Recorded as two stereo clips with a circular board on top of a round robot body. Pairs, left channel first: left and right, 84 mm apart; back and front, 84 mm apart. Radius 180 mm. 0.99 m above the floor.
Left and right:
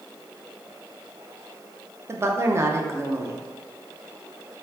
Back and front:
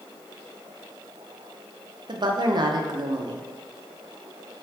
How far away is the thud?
I don't hear a thud.